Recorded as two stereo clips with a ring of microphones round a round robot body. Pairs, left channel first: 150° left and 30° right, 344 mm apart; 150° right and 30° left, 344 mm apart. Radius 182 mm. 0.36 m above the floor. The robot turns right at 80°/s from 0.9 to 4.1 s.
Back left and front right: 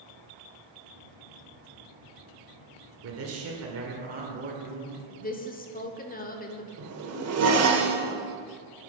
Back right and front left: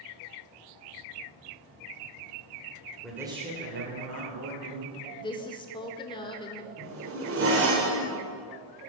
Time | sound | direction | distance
3.0 | a man speaking | 65° right | 1.7 m
5.2 | a woman speaking | 155° left | 0.8 m
6.8 | a zipper | 5° right | 1.4 m